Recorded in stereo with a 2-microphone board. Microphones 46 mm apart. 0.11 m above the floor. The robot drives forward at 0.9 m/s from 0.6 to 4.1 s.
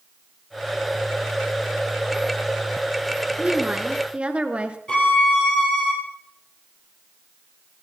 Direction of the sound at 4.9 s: 20° left (ahead or behind).